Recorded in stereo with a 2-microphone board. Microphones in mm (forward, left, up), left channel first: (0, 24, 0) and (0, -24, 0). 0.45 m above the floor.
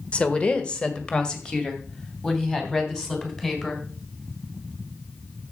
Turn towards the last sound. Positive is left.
turn(degrees=15)  # may be behind; listen again after turning